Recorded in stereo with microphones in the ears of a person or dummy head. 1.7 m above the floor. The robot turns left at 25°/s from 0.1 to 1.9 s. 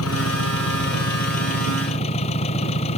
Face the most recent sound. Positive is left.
turn(degrees=35)